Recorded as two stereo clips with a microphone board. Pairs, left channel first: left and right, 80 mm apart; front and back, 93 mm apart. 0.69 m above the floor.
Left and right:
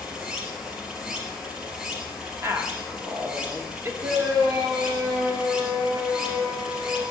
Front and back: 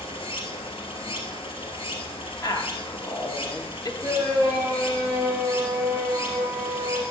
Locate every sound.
0.0 s running water: 10° right, 2 m
2.4 s a woman speaking: 40° right, 1.2 m
4.0 s a shout: 100° right, 3 m